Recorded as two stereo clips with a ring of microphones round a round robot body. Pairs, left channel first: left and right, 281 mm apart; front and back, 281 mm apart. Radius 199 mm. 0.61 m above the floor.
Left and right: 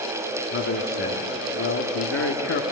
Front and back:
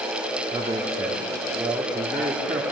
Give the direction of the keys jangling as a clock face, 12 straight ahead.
No keys jangling in this recording.